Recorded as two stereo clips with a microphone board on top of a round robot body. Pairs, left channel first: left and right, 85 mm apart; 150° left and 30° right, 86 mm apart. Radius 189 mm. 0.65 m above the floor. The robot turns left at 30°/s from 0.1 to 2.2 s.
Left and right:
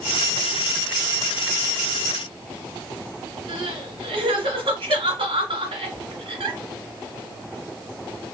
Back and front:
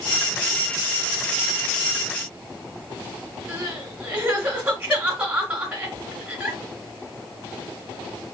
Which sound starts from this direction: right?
Crying, at 3.5 s.